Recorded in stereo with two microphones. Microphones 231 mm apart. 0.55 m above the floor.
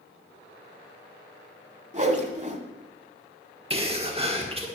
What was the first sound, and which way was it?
A whoosh, 30° right (ahead or behind).